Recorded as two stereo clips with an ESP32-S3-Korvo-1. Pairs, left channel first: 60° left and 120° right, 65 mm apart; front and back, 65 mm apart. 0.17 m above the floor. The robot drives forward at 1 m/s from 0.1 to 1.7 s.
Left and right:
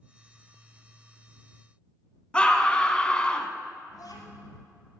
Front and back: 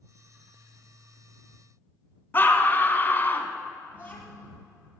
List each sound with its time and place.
2.3 s a scream: straight ahead, 1.2 m
3.9 s a child speaking: 60° left, 3.5 m